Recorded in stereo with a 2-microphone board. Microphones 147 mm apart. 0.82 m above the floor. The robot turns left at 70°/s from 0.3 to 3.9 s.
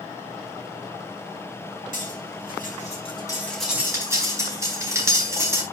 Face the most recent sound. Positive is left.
turn(degrees=-20)  # may be behind; listen again after turning